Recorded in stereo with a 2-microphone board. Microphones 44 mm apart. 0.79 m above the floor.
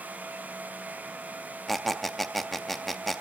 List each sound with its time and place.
1.7 s a squeak: 5° left (ahead or behind), 0.5 m